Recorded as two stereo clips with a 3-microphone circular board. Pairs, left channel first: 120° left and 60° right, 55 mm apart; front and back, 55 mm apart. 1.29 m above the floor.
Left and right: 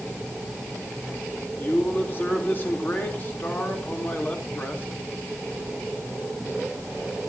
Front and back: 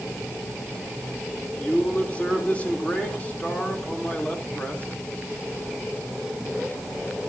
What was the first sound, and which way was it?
A man speaking, 65° left.